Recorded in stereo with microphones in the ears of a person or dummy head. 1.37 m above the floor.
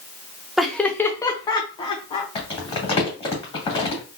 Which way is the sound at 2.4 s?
30° left (ahead or behind).